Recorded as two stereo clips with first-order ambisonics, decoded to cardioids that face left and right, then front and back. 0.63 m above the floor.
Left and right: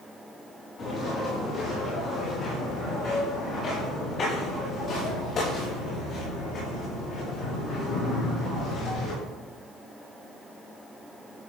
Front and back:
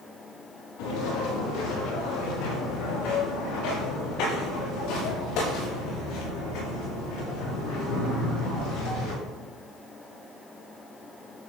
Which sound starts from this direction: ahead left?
Footsteps, at 0.8 s.